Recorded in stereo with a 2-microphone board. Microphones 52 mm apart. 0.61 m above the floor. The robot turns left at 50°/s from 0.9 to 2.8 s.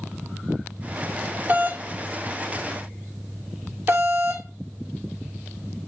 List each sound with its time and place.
1.5 s a doorbell: 35° right (ahead or behind), 1.8 m; by 4.5 s 50° right (ahead or behind), 1.8 m